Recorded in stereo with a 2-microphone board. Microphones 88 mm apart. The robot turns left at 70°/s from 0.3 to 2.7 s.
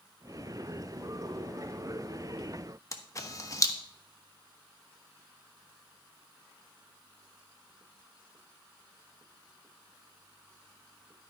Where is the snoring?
No snoring in this recording.